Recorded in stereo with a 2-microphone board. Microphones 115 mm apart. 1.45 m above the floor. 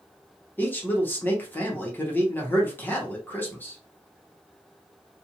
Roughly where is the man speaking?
Centre.